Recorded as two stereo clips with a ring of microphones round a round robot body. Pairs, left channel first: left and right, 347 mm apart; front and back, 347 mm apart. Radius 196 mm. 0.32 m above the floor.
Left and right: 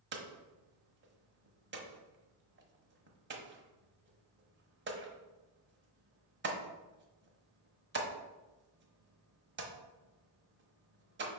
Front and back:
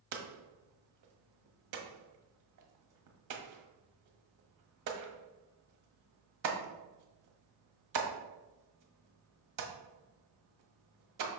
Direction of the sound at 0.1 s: 150° right.